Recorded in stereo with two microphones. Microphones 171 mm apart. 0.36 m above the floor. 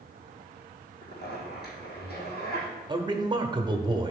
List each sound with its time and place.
1.0 s a zipper: 75° left (ahead or behind), 3.5 m
2.9 s a man speaking: 30° right (ahead or behind), 1.0 m